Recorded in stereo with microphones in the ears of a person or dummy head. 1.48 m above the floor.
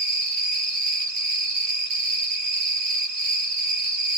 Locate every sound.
0.0 s an insect: 40° right (ahead or behind), 2.5 m